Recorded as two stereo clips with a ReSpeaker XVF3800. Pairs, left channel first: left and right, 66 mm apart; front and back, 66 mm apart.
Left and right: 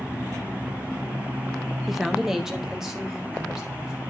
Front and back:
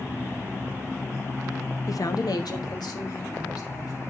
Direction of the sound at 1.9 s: 5° right.